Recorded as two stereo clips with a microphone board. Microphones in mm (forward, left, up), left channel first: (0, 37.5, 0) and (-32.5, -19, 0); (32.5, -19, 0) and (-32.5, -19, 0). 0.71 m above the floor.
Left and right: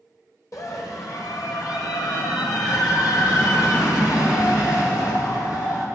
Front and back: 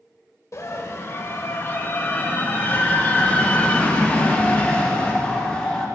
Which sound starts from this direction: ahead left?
A scream, at 0.5 s.